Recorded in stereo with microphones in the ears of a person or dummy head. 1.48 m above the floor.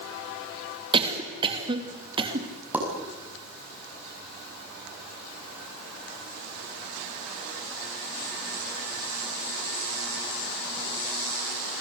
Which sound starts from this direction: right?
A cough, at 0.9 s.